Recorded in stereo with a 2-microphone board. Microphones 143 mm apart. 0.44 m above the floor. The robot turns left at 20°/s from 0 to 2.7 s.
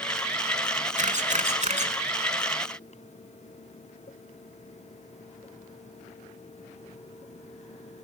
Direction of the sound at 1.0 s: 55° right (ahead or behind).